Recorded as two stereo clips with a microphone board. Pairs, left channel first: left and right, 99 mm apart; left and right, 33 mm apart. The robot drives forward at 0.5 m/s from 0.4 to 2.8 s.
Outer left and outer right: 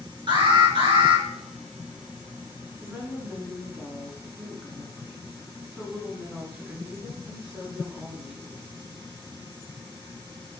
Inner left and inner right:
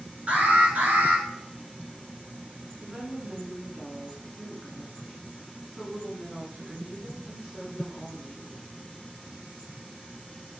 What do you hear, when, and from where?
0.3 s an alarm: 50° right (ahead or behind), 2.0 m; by 1.2 s 60° right (ahead or behind), 1.8 m
2.8 s a woman speaking: 20° right (ahead or behind), 2 m